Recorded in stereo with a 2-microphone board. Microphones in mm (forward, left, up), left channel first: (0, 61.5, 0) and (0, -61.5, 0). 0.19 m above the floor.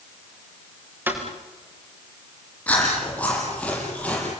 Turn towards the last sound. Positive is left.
turn(degrees=10)  # may be behind; listen again after turning